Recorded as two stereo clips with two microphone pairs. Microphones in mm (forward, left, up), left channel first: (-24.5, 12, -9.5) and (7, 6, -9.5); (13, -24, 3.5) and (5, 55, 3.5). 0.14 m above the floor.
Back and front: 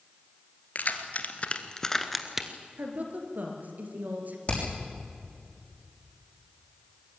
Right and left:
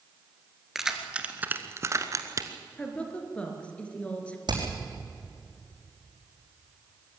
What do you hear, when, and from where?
0.8 s keys jangling: straight behind, 2.0 m; by 2.5 s 65° left, 1.7 m
2.8 s a woman speaking: 10° right, 3 m
4.5 s hammering: 115° left, 6 m